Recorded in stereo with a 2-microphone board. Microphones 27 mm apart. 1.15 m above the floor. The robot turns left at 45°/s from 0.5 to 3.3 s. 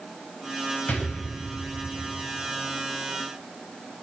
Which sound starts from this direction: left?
An explosion, at 0.9 s.